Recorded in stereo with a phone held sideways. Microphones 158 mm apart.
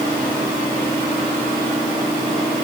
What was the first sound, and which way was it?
Only background noise.